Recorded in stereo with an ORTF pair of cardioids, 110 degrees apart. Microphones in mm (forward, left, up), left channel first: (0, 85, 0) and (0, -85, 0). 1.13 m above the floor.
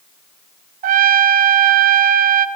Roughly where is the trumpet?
Ahead right.